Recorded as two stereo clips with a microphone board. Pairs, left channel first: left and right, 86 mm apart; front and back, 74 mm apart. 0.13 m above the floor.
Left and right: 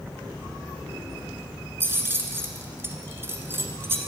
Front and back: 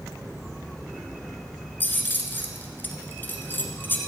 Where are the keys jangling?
45° right, 1.2 m.